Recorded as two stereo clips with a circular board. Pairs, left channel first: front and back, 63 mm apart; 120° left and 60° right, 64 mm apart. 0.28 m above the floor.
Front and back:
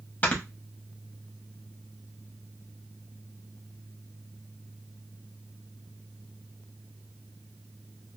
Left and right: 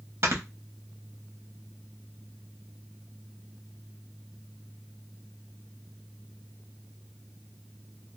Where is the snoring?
45° right, 0.9 m.